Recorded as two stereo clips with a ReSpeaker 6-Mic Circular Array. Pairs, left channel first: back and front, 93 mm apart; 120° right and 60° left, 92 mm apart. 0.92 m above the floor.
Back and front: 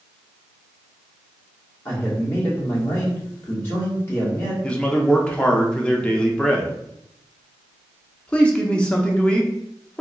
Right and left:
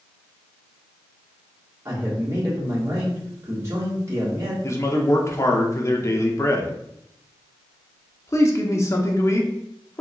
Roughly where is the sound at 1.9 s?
Behind left.